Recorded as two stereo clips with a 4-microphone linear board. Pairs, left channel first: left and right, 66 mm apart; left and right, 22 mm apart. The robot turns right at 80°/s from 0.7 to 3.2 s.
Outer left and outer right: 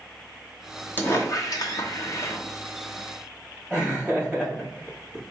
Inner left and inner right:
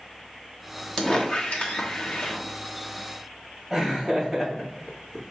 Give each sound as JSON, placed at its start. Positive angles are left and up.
{"t": 1.0, "sound": "a squeak", "azimuth_deg": 30, "distance_m": 0.8}
{"t": 3.7, "sound": "laughter", "side_deg": -20, "distance_m": 2.5}